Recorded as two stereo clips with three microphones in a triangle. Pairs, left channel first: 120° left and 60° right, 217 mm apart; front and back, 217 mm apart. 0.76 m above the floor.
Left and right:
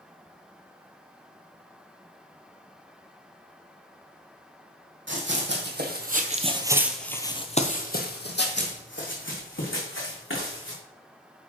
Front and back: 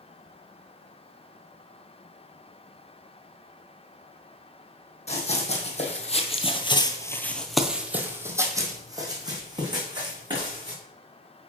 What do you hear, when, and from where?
5.1 s running footsteps: 55° right, 1.6 m; by 10.8 s 110° left, 3 m